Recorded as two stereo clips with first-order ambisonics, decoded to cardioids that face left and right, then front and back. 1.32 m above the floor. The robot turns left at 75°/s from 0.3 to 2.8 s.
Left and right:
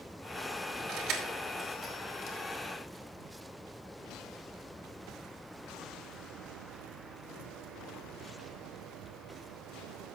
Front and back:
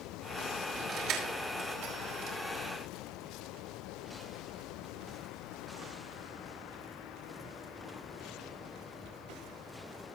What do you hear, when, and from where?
0.9 s keys jangling: 125° right, 4.5 m; by 2.4 s 125° left, 4.5 m